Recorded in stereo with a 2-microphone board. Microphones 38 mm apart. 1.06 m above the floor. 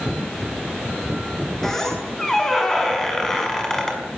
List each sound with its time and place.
1.6 s a squeak: 10° left (ahead or behind), 5.5 m